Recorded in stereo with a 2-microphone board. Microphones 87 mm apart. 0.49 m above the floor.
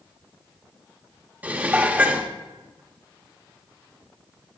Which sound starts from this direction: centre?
Dishes clattering, at 1.4 s.